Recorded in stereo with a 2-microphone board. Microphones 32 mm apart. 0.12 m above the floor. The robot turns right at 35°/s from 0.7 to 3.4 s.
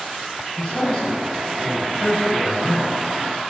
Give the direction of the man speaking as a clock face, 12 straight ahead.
10 o'clock.